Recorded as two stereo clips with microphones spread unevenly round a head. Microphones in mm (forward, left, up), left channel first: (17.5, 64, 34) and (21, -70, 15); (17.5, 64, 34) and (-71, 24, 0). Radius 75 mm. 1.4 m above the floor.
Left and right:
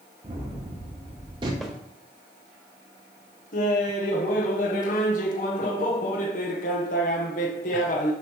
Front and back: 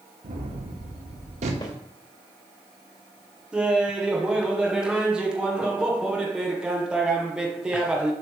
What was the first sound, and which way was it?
A gunshot, 150° right.